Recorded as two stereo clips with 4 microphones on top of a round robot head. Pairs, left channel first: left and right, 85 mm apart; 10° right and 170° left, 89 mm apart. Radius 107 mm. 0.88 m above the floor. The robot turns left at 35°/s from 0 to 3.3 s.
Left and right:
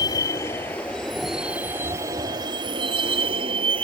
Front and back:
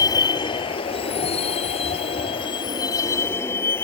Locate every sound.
0.0 s a vehicle: 40° left; by 3.9 s 75° right